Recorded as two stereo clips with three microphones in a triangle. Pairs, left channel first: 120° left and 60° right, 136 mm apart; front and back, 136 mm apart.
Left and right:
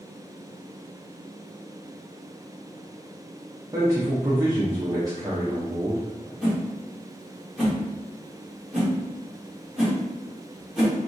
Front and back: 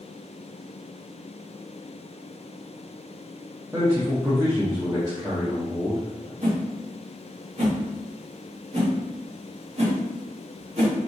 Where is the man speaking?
120° right, 0.8 m.